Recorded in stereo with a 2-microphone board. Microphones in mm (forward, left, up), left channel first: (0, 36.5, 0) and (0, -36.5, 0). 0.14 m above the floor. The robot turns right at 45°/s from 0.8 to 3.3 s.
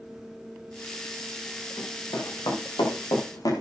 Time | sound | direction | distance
1.8 | running footsteps | 50° left (ahead or behind) | 9 m